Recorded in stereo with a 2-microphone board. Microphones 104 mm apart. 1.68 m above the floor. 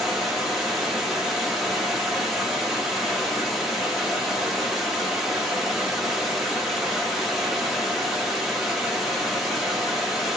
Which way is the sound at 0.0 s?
5° right (ahead or behind).